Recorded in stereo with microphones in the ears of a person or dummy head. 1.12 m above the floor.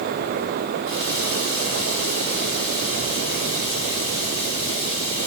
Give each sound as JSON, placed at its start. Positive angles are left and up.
{"t": 0.8, "sound": "a running tap", "side_deg": 20, "distance_m": 6.0}